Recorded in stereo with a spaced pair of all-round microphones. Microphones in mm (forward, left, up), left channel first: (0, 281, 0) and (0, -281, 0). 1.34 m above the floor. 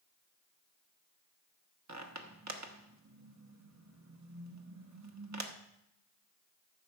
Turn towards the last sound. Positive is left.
turn(degrees=-30)  # may be behind; listen again after turning